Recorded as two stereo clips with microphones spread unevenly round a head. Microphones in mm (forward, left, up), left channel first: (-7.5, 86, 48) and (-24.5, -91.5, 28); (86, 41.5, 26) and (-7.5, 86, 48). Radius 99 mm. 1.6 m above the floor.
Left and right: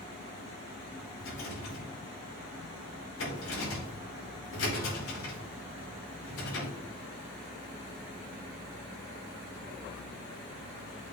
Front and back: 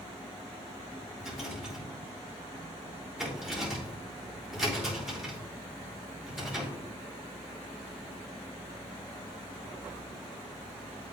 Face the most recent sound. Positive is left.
turn(degrees=65)